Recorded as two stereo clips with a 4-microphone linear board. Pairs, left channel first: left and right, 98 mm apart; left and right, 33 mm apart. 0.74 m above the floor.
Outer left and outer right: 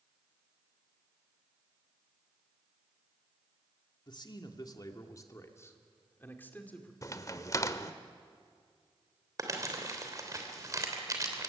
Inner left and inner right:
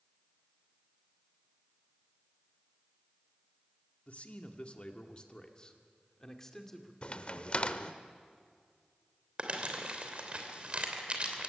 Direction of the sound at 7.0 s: 35° left (ahead or behind).